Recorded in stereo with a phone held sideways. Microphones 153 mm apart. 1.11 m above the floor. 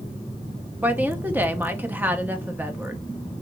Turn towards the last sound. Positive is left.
turn(degrees=-10)  # may be behind; listen again after turning